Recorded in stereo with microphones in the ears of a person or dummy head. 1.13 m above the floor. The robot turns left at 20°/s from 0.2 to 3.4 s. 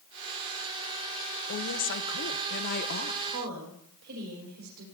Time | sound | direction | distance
1.5 | a woman speaking | 95° left | 0.8 m
3.3 | a woman speaking | 70° right (ahead or behind) | 5 m